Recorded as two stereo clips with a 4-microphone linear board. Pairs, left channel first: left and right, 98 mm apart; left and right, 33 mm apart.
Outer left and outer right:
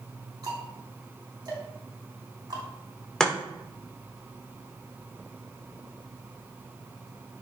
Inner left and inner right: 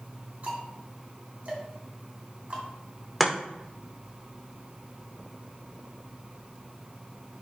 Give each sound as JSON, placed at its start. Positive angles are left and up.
{"t": 0.4, "sound": "ticking", "side_deg": -45, "distance_m": 3.0}
{"t": 3.2, "sound": "chopping", "side_deg": 5, "distance_m": 1.5}